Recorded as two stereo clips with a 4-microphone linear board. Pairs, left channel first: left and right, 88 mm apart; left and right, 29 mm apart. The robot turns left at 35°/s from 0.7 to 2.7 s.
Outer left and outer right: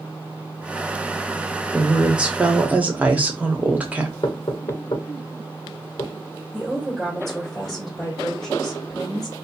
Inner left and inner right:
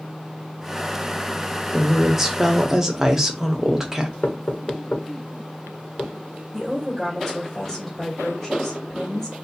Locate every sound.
1.7 s a woman speaking: 5° right (ahead or behind), 0.8 m; by 4.1 s 15° right (ahead or behind), 0.8 m
4.2 s knocking: 65° left (ahead or behind), 1.2 m
6.5 s a woman speaking: 5° left (ahead or behind), 1.6 m